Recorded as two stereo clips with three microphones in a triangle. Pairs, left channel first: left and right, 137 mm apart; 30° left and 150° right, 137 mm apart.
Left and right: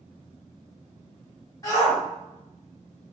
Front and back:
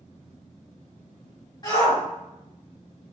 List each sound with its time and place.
1.6 s a shout: 50° left, 1.7 m